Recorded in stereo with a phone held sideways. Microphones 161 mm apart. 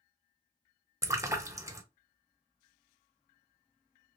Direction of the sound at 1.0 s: 20° right (ahead or behind).